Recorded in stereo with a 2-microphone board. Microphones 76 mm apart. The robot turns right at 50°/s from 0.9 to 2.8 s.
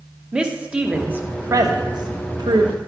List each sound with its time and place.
0.3 s a woman speaking: 15° right (ahead or behind), 0.9 m; by 2.8 s 70° right (ahead or behind), 0.9 m